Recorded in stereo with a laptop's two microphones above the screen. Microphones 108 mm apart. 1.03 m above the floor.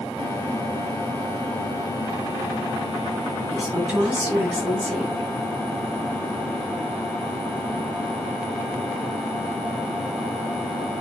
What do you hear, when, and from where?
3.5 s a woman speaking: 5° right (ahead or behind), 3 m